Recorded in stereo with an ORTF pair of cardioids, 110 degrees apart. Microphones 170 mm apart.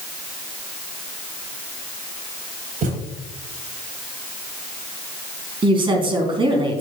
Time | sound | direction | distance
2.8 | a thud | 60° right | 3.5 m
5.6 | a woman speaking | 30° right | 3.5 m